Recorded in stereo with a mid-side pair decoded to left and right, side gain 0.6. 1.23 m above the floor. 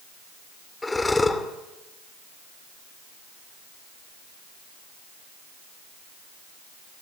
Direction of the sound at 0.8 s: 15° left.